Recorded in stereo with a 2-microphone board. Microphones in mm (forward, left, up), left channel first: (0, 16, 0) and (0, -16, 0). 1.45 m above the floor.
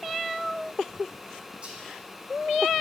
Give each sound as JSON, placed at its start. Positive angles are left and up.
{"t": 1.6, "sound": "whispering", "side_deg": -30, "distance_m": 2.5}